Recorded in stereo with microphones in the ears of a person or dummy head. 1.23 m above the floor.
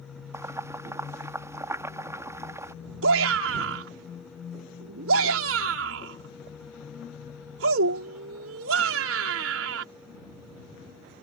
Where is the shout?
80° right.